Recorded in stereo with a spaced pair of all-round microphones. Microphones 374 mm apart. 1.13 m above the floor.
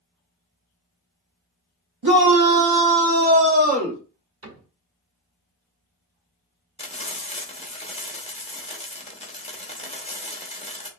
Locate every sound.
2.0 s a shout: 80° right, 0.9 m; by 4.0 s 15° right (ahead or behind), 1.2 m
4.4 s a cupboard door: 40° right (ahead or behind), 1.3 m
6.8 s frying: 15° left (ahead or behind), 0.7 m